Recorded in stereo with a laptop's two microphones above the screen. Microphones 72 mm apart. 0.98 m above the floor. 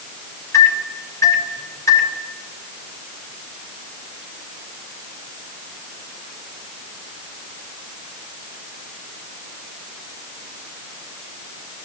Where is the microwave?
50° left (ahead or behind), 3.5 m.